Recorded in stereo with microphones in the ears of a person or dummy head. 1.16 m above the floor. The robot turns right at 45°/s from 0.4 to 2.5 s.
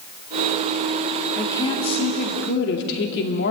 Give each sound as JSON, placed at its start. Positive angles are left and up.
{"t": 1.4, "sound": "a woman speaking", "azimuth_deg": 10, "distance_m": 2.0}